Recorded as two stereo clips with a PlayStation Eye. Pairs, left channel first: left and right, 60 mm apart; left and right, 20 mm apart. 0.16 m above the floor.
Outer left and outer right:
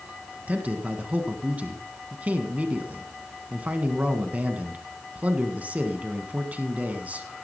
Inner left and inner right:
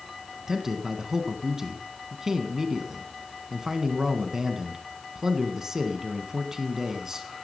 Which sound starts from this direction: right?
A man speaking, at 0.5 s.